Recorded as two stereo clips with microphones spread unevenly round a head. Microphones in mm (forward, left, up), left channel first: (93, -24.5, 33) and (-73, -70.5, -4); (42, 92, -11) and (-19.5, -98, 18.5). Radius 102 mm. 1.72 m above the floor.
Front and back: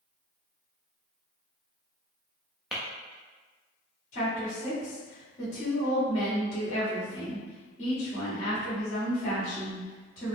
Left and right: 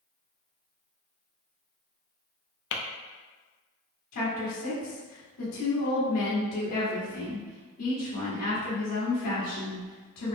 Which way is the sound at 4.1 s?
70° left.